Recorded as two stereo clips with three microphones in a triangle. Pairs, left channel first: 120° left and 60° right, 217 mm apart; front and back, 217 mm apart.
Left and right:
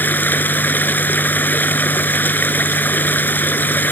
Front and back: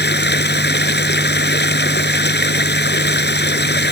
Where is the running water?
40° left.